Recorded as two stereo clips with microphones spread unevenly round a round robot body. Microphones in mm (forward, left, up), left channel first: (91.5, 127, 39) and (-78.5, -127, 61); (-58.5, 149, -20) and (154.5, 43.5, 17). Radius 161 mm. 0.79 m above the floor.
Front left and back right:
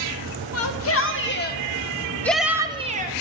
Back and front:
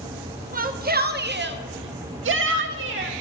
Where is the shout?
30° left, 1.8 m; by 3.1 s 70° right, 1.3 m.